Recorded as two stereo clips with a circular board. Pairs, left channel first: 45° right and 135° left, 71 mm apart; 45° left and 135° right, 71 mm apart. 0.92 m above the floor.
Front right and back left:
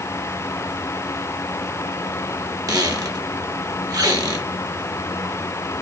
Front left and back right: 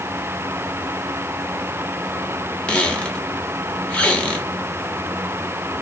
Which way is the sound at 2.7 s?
115° left.